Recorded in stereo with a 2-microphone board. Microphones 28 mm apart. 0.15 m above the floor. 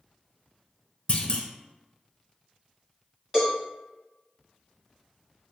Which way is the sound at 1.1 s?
40° left (ahead or behind).